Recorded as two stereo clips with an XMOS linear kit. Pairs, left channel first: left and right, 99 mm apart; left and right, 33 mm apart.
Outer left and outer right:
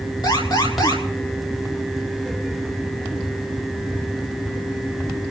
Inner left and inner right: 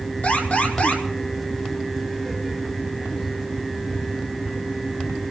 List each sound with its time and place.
0.2 s an alarm: 45° left (ahead or behind), 6.5 m